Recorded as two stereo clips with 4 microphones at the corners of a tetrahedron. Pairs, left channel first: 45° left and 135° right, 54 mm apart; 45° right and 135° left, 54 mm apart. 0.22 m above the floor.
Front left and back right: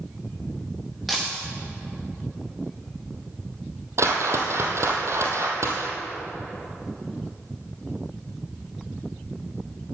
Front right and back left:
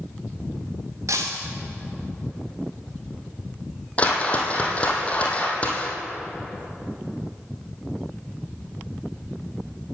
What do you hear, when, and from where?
1.1 s breaking glass: 135° left, 3.5 m
4.0 s a whoosh: 110° right, 2 m